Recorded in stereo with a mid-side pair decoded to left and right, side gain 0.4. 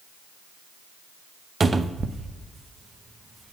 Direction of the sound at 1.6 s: 35° right.